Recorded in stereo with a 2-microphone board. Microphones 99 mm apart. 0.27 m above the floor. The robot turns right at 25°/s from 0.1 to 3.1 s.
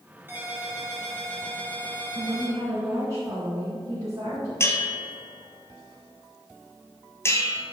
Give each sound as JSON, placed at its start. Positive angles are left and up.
{"t": 0.3, "sound": "a ringtone", "azimuth_deg": -20, "distance_m": 2.5}
{"t": 2.1, "sound": "a woman speaking", "side_deg": -55, "distance_m": 2.5}
{"t": 4.6, "sound": "a bell", "side_deg": 25, "distance_m": 1.3}